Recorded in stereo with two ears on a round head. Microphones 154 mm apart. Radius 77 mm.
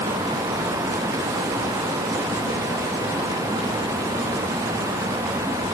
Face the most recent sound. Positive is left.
No sound to turn to.